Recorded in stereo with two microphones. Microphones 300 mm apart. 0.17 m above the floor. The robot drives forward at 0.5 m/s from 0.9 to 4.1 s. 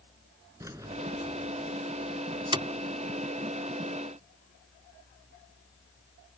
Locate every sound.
0.6 s keys jangling: 10° right (ahead or behind); by 2.7 s 15° right (ahead or behind)